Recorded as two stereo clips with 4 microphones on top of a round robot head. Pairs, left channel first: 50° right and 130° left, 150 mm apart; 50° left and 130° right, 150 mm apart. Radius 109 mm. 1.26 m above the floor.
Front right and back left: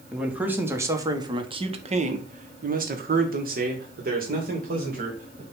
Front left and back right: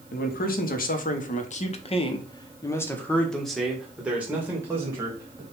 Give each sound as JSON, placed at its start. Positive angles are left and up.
{"t": 0.1, "sound": "a man speaking", "azimuth_deg": 45, "distance_m": 1.5}